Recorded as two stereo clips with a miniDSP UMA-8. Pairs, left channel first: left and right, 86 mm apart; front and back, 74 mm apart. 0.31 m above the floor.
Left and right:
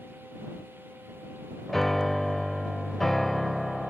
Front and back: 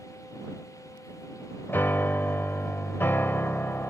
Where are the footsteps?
I don't hear footsteps.